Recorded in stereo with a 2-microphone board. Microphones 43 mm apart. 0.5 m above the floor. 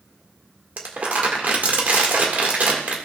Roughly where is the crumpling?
Right.